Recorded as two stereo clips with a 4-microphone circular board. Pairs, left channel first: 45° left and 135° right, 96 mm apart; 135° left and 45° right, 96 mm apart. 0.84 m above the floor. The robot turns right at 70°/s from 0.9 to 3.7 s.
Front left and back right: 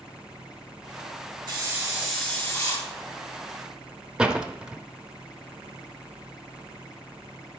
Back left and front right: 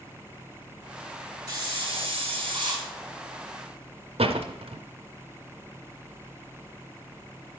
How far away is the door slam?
About 0.6 m.